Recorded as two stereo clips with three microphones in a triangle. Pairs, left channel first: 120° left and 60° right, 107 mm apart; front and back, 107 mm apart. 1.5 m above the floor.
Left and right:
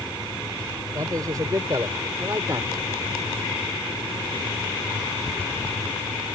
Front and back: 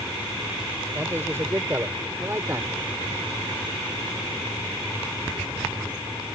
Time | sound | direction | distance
0.9 | a man speaking | 115° right | ?